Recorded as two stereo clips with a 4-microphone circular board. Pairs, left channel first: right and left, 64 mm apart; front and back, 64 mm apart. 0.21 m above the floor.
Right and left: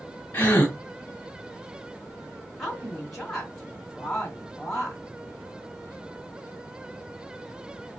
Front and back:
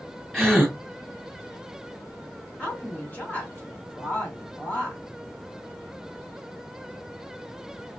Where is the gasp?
95° right, 1.2 m.